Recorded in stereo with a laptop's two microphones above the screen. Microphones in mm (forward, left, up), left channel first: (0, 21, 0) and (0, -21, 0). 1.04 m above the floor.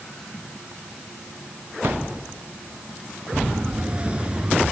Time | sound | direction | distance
1.8 | a thud | 65° right (ahead or behind) | ?
3.3 | a siren | 25° right (ahead or behind) | ?